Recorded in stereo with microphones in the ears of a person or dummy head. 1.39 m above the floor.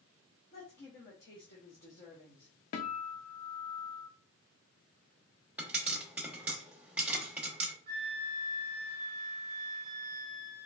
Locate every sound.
0.5 s a woman speaking: 45° left (ahead or behind), 1.2 m
2.7 s a guitar: 45° left (ahead or behind), 0.6 m
5.6 s a pop: 5° right (ahead or behind), 0.9 m
7.9 s a flute: 20° right (ahead or behind), 1.2 m